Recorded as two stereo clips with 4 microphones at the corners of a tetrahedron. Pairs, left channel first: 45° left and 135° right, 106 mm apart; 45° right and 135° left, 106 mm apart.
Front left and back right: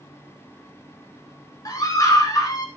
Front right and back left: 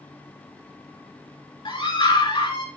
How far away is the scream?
About 4 m.